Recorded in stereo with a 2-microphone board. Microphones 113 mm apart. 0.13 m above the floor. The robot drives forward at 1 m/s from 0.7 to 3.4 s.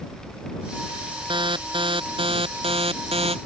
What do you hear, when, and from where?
1.3 s an alarm: 45° right (ahead or behind); by 3.4 s 60° right (ahead or behind)